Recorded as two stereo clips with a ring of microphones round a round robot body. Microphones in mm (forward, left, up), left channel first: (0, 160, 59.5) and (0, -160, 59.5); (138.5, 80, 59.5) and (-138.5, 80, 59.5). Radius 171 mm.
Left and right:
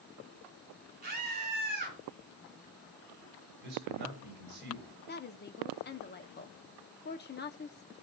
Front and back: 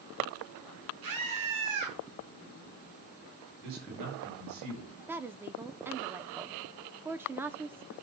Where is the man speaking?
145° right, 7.5 m.